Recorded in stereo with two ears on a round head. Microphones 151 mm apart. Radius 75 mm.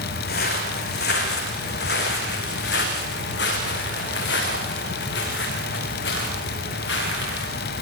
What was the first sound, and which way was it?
Footsteps, 60° left (ahead or behind).